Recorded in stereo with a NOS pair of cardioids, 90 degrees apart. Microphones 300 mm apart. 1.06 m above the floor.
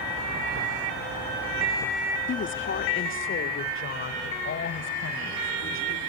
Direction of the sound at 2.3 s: 40° left.